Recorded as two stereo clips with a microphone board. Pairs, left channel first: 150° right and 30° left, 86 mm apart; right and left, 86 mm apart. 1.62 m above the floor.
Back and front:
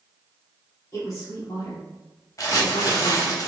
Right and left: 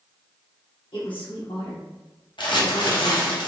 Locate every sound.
0.9 s a woman speaking: 100° right, 1.7 m; by 3.4 s 155° right, 0.5 m
2.4 s crumpling: 105° right, 0.9 m